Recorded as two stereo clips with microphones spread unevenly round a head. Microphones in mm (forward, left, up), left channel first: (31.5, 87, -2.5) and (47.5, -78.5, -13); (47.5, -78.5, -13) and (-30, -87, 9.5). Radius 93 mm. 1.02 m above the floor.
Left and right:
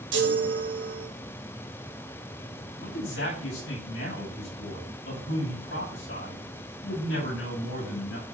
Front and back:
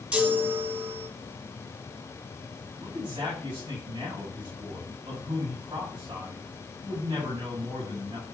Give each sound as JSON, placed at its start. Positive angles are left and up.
{"t": 0.1, "sound": "a chime", "azimuth_deg": -100, "distance_m": 3.0}
{"t": 2.8, "sound": "a man speaking", "azimuth_deg": 115, "distance_m": 6.0}